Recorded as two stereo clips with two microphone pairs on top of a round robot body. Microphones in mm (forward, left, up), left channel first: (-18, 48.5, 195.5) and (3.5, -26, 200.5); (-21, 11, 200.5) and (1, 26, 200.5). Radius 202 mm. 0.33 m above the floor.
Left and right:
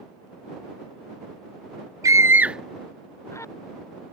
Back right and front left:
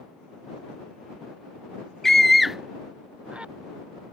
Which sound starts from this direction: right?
A scream, at 2.0 s.